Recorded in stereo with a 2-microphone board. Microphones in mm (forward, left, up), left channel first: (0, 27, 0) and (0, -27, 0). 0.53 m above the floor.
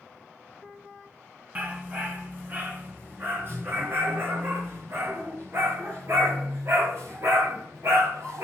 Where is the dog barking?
30° right (ahead or behind), 2.5 m; by 8.4 s 60° right (ahead or behind), 6.5 m.